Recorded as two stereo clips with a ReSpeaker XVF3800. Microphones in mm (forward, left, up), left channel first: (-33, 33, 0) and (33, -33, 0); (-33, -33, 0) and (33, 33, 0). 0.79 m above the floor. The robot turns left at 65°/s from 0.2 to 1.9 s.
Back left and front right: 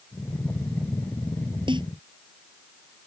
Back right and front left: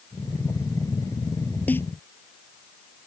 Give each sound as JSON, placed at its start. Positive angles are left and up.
{"t": 1.7, "sound": "a snare drum", "azimuth_deg": -65}